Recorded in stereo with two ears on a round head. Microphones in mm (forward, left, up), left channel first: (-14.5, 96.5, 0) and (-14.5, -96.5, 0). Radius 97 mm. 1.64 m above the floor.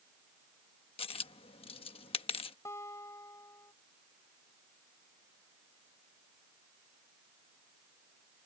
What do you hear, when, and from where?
1.0 s a dropped coin: 25° left (ahead or behind)
2.6 s a guitar: 15° left (ahead or behind)